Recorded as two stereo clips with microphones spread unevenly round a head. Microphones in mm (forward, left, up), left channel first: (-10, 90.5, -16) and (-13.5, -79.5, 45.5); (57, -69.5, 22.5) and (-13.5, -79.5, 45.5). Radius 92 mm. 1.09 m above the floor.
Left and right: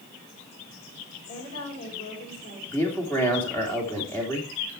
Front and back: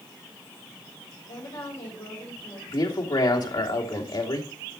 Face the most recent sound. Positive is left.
turn(degrees=10)